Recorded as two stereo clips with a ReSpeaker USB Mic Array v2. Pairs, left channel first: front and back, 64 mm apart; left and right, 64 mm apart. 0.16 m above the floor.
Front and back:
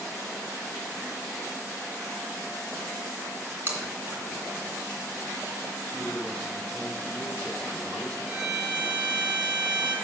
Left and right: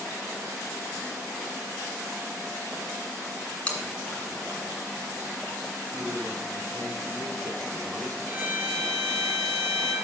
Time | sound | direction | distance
3.7 | chewing | 155° left | 2 m
5.9 | a man speaking | 75° right | 3 m
8.3 | a violin | 105° right | 2.0 m